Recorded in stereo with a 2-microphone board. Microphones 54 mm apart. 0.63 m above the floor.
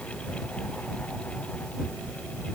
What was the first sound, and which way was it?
Only background noise.